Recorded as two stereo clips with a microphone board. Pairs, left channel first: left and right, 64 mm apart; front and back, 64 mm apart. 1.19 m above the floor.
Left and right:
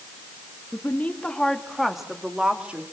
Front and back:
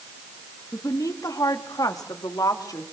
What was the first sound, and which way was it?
A woman speaking, 30° left.